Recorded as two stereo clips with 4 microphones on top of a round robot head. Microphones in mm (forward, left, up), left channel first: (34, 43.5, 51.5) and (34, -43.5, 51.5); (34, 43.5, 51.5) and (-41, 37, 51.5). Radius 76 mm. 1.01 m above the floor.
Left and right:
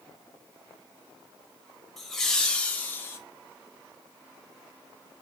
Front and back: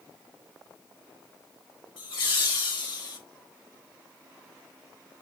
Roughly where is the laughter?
Ahead.